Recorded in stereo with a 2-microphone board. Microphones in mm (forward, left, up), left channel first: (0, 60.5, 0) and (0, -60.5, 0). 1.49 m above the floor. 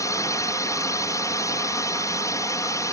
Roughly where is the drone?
Left.